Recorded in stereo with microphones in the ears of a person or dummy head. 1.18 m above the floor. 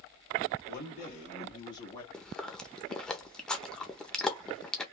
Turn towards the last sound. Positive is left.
turn(degrees=-5)  # may be behind; listen again after turning